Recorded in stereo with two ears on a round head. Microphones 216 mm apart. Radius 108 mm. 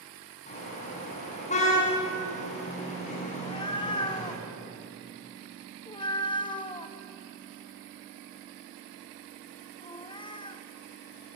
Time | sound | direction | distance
0.5 | a car horn | 30° left (ahead or behind) | 7 m
3.3 | a cat meowing | 20° left (ahead or behind) | 1.1 m